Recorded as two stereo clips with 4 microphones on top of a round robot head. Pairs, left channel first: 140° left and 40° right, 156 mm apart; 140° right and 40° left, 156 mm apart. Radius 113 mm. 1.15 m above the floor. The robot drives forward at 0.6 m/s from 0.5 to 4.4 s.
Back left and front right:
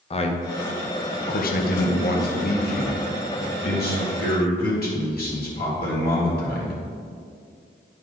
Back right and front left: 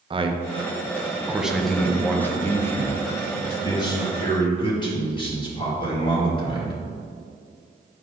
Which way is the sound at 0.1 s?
95° left.